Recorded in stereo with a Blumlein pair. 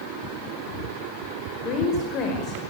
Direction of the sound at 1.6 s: 35° left.